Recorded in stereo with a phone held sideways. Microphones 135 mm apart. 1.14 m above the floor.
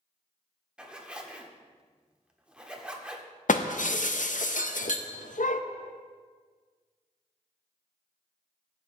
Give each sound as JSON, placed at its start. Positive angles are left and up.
{"t": 0.8, "sound": "a zipper", "side_deg": -10, "distance_m": 1.2}
{"t": 3.5, "sound": "breaking glass", "side_deg": 70, "distance_m": 0.7}